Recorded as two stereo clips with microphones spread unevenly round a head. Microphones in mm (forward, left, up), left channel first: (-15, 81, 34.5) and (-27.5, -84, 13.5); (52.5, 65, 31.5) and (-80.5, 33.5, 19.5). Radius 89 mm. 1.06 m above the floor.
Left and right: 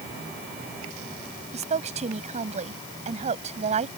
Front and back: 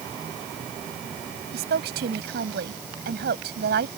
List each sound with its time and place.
1.5 s a woman speaking: 145° right